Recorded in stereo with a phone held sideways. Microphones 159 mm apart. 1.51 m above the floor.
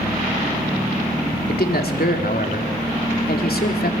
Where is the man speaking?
75° left (ahead or behind), 3.5 m.